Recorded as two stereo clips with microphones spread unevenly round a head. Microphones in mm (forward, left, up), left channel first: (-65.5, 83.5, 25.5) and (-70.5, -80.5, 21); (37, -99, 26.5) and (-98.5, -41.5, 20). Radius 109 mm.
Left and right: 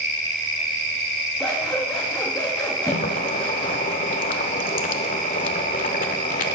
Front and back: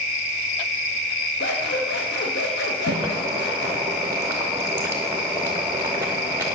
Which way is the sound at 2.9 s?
80° left.